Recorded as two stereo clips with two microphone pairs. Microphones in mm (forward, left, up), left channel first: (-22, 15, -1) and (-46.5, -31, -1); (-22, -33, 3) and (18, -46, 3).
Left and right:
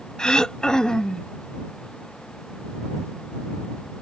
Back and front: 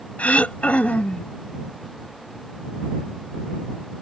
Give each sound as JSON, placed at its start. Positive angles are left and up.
{"t": 0.2, "sound": "throat clearing", "azimuth_deg": 135}